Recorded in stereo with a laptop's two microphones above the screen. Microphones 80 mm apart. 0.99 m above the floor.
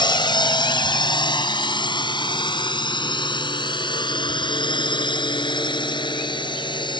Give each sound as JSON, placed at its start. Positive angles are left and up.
{"t": 0.0, "sound": "a drone", "side_deg": 65}